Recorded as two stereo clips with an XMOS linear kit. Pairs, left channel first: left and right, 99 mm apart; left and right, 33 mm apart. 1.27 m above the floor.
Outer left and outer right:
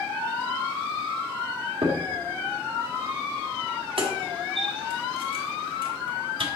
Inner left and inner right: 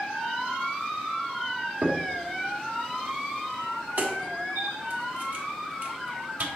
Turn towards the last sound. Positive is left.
turn(degrees=-60)  # may be behind; listen again after turning